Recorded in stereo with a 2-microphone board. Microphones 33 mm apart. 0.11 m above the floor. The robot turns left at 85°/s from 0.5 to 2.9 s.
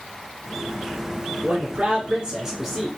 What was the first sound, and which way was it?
A man speaking, 80° right.